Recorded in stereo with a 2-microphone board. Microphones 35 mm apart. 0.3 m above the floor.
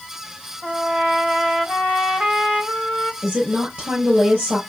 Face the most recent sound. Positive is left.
turn(degrees=-45)  # may be behind; listen again after turning